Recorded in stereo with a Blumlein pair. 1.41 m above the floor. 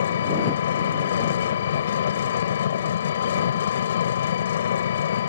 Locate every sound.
0.0 s an engine running: 65° left